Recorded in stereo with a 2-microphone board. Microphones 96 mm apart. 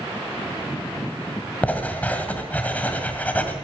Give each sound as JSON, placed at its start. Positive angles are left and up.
{"t": 1.6, "sound": "writing", "side_deg": 15, "distance_m": 1.7}